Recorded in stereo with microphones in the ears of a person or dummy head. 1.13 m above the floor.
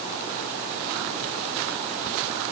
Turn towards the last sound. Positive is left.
No sound to turn to.